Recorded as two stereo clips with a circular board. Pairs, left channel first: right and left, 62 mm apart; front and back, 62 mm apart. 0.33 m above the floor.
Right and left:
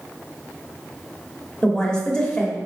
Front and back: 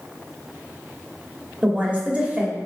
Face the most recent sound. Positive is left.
turn(degrees=-145)